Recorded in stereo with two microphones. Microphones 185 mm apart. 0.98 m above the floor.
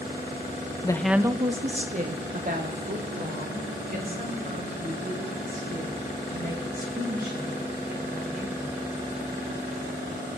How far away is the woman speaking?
About 0.6 m.